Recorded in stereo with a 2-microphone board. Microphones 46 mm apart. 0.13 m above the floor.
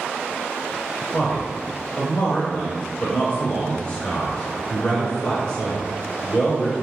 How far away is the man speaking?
About 1.5 m.